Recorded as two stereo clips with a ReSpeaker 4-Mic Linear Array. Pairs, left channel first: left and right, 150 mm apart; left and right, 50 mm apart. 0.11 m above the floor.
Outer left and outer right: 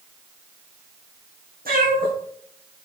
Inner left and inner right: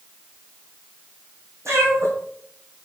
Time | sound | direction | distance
1.6 | a cat meowing | 75° right (ahead or behind) | 3 m